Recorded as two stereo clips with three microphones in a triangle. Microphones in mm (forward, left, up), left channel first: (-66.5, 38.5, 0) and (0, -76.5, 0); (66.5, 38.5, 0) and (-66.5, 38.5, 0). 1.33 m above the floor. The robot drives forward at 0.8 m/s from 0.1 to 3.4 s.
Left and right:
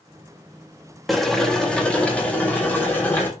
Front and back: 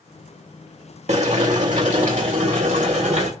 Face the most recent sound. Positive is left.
turn(degrees=-165)